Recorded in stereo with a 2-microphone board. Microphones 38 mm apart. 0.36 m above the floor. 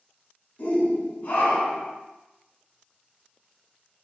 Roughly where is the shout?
Left.